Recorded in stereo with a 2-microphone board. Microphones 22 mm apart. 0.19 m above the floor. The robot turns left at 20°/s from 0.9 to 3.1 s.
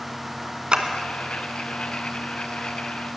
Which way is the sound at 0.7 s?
45° right (ahead or behind).